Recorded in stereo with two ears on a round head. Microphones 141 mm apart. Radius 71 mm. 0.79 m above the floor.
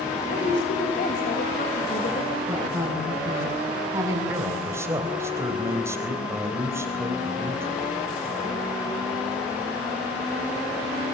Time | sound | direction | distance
0.3 | a woman speaking | 50° left (ahead or behind) | 3.5 m
2.5 | a woman speaking | 20° right (ahead or behind) | 8 m
4.3 | a man speaking | 20° right (ahead or behind) | 3.5 m